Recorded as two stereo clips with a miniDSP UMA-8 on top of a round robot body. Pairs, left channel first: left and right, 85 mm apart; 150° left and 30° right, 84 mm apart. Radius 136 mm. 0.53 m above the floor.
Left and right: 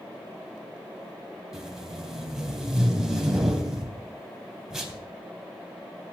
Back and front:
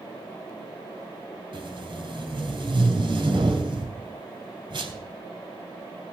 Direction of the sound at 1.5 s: Straight ahead.